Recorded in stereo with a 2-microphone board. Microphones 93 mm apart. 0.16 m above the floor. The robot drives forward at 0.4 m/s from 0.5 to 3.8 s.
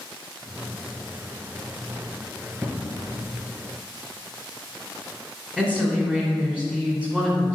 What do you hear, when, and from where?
2.6 s an explosion: 20° right (ahead or behind), 1.3 m; by 3.1 s 15° right (ahead or behind), 1.5 m
5.6 s a woman speaking: 10° right (ahead or behind), 1.6 m